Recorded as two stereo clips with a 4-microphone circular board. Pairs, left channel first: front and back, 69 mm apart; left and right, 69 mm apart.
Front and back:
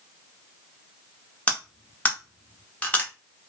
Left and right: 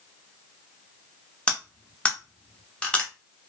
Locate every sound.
1.5 s cutlery clinking: 40° left, 0.8 m